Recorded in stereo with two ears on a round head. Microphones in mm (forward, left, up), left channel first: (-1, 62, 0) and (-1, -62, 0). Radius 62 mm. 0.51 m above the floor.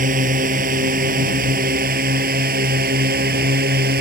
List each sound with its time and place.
0.0 s a drone: 65° right (ahead or behind); by 4.0 s 75° right (ahead or behind)